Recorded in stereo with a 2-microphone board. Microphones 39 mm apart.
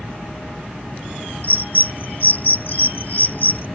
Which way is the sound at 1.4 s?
50° left (ahead or behind).